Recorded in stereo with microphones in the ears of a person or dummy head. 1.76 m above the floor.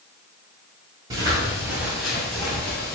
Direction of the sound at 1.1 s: 20° right (ahead or behind).